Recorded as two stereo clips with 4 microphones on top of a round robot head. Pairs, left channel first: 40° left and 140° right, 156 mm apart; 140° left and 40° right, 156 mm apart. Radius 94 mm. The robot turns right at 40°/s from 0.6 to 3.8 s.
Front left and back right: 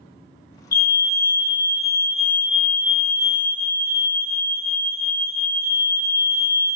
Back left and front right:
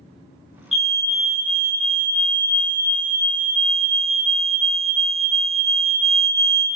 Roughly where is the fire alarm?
Ahead left.